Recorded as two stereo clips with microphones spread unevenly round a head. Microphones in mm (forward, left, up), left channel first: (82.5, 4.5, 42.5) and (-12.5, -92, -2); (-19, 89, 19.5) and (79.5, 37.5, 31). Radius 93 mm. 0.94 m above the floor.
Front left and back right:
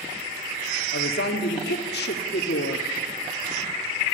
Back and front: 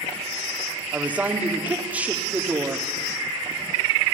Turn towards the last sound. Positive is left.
turn(degrees=50)